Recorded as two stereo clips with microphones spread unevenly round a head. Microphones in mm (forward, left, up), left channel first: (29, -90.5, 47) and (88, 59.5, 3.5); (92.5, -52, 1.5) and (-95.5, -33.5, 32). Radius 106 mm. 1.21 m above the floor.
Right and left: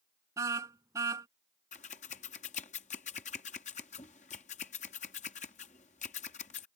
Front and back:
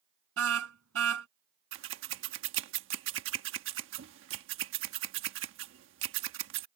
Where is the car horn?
150° left.